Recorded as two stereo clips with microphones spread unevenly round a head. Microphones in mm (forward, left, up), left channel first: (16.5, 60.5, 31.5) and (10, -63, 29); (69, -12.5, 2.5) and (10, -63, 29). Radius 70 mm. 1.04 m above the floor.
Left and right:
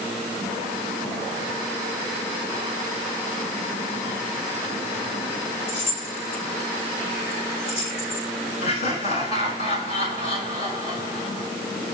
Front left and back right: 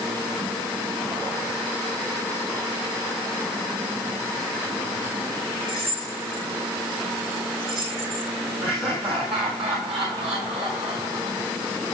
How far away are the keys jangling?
About 6 m.